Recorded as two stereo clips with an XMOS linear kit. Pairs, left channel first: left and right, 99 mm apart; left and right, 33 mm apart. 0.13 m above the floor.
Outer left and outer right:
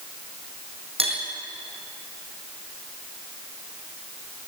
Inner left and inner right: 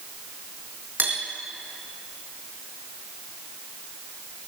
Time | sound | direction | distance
1.0 | cutlery clinking | 75° right (ahead or behind) | 3.5 m